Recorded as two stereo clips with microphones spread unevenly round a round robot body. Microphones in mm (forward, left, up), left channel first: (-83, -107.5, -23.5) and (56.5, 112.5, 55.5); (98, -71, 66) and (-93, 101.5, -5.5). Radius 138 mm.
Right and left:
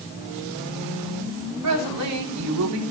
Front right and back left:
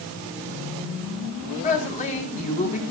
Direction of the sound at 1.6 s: 25° left.